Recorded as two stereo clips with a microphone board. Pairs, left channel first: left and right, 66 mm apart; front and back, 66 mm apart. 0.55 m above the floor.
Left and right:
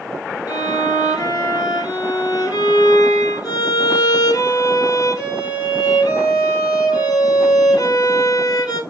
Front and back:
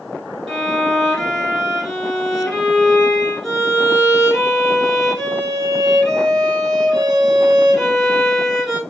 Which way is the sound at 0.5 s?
90° left.